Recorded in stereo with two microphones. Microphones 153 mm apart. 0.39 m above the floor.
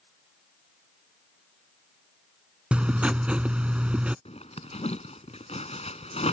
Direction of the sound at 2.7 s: 5° right (ahead or behind).